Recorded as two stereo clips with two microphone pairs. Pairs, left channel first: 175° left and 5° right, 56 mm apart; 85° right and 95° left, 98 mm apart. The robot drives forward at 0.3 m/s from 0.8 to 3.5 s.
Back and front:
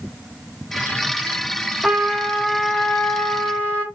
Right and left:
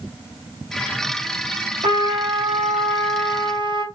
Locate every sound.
1.8 s a trumpet: 80° left, 0.9 m; by 3.9 s 115° left, 1.0 m